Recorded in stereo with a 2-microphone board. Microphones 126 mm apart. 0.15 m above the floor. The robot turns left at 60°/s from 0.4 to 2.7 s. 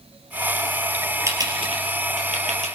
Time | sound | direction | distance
1.3 | typing on a keyboard | 25° right (ahead or behind) | 3.5 m